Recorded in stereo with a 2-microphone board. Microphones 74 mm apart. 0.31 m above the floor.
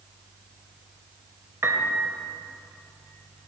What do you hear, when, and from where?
1.6 s a piano: 35° right (ahead or behind), 0.8 m